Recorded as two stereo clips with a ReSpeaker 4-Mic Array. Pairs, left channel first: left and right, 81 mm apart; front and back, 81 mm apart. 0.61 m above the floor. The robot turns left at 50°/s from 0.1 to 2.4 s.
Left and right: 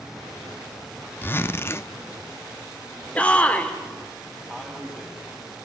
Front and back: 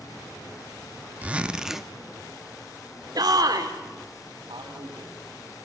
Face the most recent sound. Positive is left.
turn(degrees=175)